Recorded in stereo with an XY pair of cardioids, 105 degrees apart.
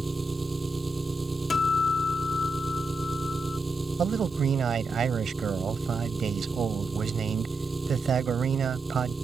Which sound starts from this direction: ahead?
An engine running, at 0.0 s.